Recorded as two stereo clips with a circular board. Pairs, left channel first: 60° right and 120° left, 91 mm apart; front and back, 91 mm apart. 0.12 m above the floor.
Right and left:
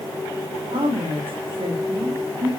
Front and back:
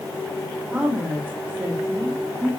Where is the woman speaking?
105° left, 6.5 m; by 2.5 s 115° left, 7 m.